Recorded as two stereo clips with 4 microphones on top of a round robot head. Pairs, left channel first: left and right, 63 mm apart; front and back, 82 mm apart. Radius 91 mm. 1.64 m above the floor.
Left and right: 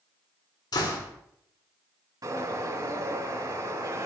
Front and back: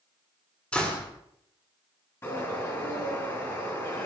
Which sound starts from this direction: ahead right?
A bird, at 2.2 s.